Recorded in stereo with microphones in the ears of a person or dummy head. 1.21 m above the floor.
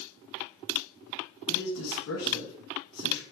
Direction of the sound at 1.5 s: 70° left (ahead or behind).